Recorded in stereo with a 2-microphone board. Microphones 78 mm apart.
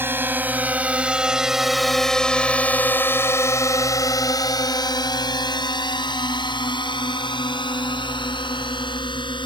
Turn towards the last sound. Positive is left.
turn(degrees=75)  # may be behind; listen again after turning